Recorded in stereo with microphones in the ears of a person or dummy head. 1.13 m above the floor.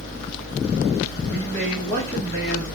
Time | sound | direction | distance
1.2 | a man speaking | 5° left (ahead or behind) | 1.9 m